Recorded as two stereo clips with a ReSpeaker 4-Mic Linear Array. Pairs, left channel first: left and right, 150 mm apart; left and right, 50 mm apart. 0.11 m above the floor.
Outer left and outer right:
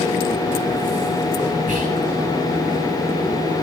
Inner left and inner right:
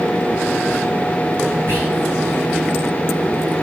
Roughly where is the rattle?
I don't hear a rattle.